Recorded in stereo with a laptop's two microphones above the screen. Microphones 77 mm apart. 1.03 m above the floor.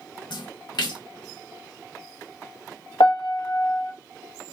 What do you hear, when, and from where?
0.3 s a splash: 70° left (ahead or behind), 0.6 m
3.0 s a piano: 75° left (ahead or behind), 0.5 m